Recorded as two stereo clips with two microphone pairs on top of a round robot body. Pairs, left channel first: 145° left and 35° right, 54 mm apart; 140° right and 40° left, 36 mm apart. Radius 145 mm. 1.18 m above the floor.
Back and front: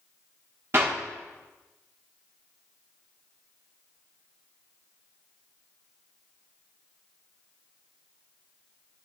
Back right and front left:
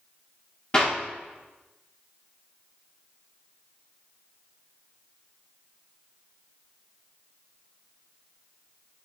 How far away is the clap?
About 2 m.